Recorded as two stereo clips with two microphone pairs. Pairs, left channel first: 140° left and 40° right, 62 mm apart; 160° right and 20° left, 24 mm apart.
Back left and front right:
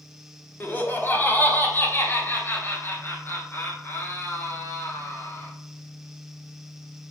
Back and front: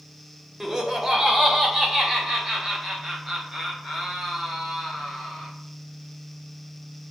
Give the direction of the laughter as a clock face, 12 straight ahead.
9 o'clock.